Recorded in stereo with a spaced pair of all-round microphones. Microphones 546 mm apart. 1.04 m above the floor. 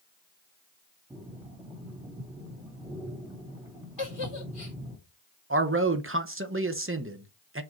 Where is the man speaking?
25° right (ahead or behind), 0.9 m.